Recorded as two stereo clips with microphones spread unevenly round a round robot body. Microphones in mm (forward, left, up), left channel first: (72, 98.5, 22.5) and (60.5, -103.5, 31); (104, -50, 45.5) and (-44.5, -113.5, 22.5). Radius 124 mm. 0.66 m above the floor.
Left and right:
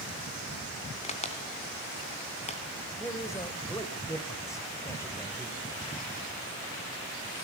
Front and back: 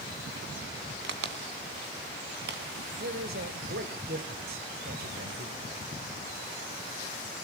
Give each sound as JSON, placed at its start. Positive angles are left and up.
{"t": 1.0, "sound": "a crack", "azimuth_deg": 155, "distance_m": 2.0}
{"t": 3.0, "sound": "a man speaking", "azimuth_deg": 165, "distance_m": 2.5}